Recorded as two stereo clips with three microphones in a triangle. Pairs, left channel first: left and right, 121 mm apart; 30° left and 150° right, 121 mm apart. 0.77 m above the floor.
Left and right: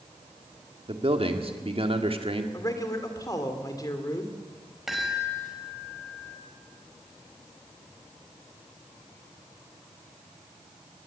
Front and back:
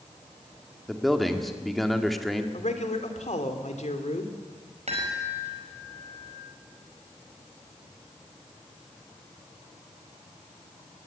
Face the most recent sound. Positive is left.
turn(degrees=180)